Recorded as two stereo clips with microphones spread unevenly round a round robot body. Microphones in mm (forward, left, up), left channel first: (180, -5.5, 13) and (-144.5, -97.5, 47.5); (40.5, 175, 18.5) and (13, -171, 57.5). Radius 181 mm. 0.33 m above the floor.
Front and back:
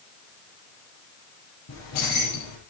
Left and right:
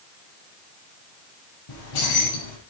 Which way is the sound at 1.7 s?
65° left.